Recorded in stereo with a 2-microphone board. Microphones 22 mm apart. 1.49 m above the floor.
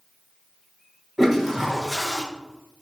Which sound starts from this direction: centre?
A toilet flushing, at 1.2 s.